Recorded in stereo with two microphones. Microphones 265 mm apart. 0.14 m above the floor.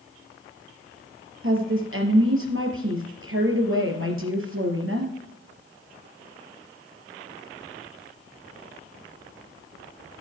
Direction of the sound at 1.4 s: 55° right (ahead or behind).